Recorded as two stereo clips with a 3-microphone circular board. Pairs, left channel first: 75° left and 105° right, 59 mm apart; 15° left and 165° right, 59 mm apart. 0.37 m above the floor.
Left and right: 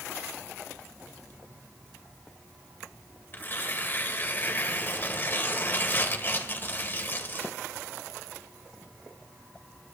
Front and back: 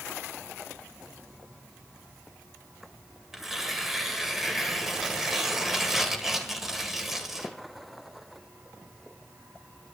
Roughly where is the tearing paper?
Behind left.